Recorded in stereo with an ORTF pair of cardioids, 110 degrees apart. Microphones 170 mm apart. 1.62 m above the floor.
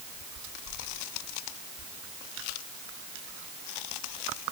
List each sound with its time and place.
Only background noise.